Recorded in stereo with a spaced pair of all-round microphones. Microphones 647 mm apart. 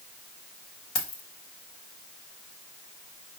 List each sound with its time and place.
0.9 s keys jangling: 60° left (ahead or behind), 1.0 m